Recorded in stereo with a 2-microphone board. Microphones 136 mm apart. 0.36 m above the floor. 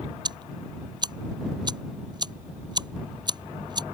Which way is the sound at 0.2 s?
30° right (ahead or behind).